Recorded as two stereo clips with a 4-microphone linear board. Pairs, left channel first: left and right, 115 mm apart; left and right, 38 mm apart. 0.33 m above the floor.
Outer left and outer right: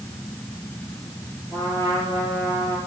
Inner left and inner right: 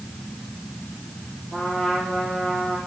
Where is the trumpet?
30° left (ahead or behind), 8 m.